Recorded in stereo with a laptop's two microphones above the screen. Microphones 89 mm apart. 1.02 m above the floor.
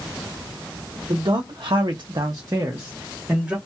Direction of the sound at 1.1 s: 55° right (ahead or behind).